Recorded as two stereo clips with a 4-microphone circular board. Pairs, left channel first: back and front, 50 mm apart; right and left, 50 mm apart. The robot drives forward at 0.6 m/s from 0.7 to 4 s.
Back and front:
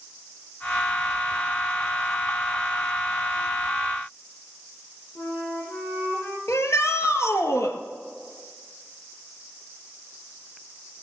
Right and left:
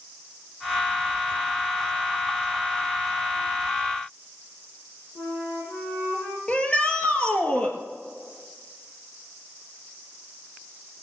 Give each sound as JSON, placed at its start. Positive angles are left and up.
{"t": 5.2, "sound": "a flute", "azimuth_deg": -120, "distance_m": 4.0}
{"t": 6.5, "sound": "a shout", "azimuth_deg": -160, "distance_m": 2.5}